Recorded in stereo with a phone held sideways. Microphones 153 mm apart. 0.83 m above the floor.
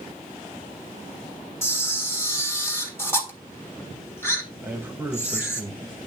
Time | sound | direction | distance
1.6 | a camera shutter | 15° left (ahead or behind) | 1.5 m
4.6 | a man speaking | 15° right (ahead or behind) | 1.1 m